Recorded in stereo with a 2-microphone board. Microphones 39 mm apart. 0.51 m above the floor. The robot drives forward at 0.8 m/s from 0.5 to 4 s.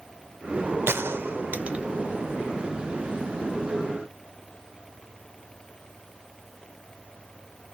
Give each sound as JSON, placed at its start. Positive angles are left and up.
{"t": 0.9, "sound": "a gunshot", "side_deg": -75, "distance_m": 0.5}